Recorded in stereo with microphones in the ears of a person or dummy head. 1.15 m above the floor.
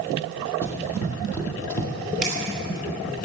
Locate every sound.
0.6 s running footsteps: 20° left (ahead or behind), 3 m; by 1.9 s 10° left (ahead or behind), 2.0 m
2.2 s a camera shutter: centre (ahead or behind), 6 m